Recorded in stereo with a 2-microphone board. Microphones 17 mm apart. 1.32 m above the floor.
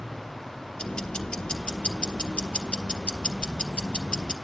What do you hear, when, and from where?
0.8 s ticking: 75° left (ahead or behind), 1.4 m